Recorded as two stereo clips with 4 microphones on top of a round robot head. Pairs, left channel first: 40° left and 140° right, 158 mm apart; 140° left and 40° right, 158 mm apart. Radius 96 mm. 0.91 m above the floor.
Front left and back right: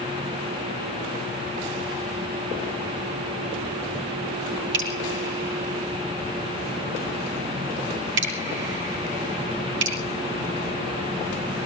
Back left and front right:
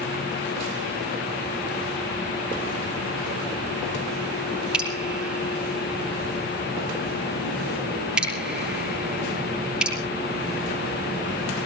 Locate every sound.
4.7 s dripping: 125° right, 6 m